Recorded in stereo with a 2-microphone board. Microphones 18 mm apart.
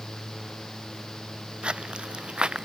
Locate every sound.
1.6 s footsteps: 80° right; by 2.6 s 70° right (ahead or behind)